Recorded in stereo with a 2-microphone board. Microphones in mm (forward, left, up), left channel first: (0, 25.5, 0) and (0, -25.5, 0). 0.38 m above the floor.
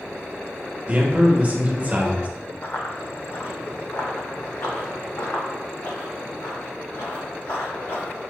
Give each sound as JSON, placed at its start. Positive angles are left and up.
{"t": 0.9, "sound": "a man speaking", "side_deg": -30, "distance_m": 0.9}
{"t": 2.6, "sound": "running footsteps", "side_deg": 40, "distance_m": 1.0}